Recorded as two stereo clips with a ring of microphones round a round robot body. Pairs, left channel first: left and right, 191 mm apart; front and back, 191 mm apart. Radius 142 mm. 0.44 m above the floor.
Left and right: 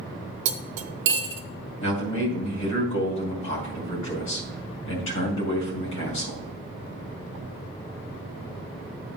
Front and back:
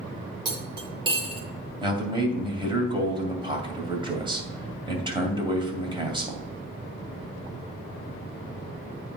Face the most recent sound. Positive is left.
turn(degrees=115)